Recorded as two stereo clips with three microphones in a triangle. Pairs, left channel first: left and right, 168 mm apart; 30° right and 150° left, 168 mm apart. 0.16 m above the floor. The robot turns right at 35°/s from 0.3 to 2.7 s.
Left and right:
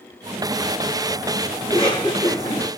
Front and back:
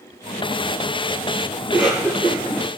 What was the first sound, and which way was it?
A cough, 75° left.